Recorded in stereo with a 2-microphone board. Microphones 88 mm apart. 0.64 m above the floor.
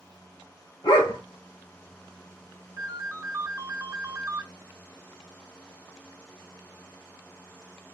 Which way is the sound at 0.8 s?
65° left (ahead or behind).